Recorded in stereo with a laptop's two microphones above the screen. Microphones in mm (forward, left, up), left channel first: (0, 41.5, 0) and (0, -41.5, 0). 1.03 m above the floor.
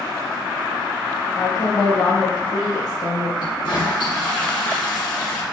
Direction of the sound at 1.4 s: 55° left (ahead or behind).